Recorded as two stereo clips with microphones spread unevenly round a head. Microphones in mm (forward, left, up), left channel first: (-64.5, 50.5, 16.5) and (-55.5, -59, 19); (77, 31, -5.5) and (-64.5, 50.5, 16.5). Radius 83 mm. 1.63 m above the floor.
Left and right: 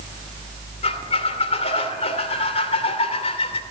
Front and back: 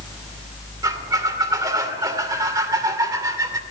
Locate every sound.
0.8 s a squeak: 115° left, 2.5 m